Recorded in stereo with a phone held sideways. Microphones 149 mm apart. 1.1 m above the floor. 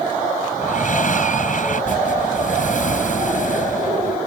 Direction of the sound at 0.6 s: 60° left (ahead or behind).